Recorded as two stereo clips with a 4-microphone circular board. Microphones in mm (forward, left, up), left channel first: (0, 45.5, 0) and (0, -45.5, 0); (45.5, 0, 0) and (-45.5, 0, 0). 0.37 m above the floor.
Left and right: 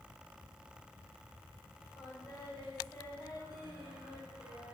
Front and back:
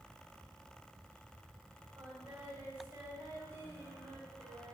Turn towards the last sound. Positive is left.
turn(degrees=110)